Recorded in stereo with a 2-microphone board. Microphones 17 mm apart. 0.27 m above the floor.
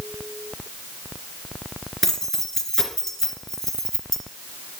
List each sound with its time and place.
2.0 s keys jangling: 15° left (ahead or behind), 2.5 m